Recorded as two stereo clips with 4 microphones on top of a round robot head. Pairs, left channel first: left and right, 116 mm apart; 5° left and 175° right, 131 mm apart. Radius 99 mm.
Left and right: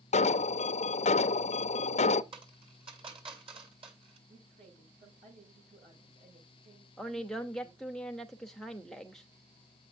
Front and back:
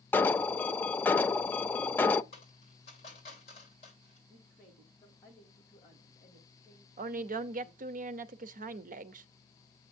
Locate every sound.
0.1 s an alarm: 80° left, 0.6 m
2.3 s a dropped coin: 50° right, 7 m
4.3 s a woman speaking: 70° right, 8 m
7.0 s a woman speaking: 175° left, 0.7 m